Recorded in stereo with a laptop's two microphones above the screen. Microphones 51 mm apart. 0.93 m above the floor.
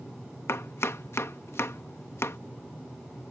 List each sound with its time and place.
0.5 s chopping: 65° left (ahead or behind)